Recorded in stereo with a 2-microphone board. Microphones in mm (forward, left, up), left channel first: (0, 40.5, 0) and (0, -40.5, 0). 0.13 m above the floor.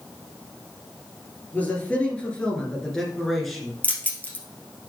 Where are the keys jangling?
20° left (ahead or behind), 1.7 m.